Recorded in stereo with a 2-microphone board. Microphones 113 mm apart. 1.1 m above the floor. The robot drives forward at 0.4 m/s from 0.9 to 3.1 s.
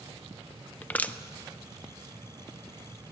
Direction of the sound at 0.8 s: 15° left (ahead or behind).